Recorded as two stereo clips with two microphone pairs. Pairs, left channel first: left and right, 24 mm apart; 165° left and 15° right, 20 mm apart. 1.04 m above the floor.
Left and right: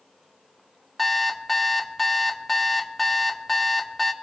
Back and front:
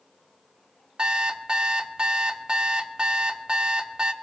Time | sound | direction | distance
1.0 | an alarm clock | straight ahead | 0.8 m